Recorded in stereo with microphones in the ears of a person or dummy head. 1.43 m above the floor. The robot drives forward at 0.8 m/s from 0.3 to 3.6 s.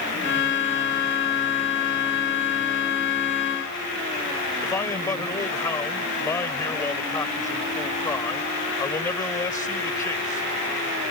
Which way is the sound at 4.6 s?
20° left (ahead or behind).